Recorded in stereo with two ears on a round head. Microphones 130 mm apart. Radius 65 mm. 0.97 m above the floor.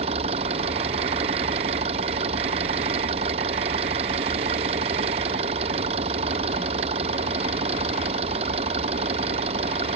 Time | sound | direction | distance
0.0 | an engine running | 45° right (ahead or behind) | ?